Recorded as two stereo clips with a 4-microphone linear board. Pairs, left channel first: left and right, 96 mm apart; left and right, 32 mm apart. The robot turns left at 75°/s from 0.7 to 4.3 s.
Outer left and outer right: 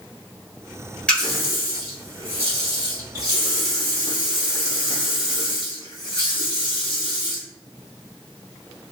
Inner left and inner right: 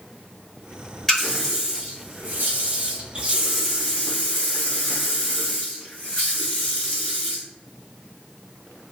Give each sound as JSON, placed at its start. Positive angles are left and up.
{"t": 1.1, "sound": "a running tap", "azimuth_deg": 10, "distance_m": 1.2}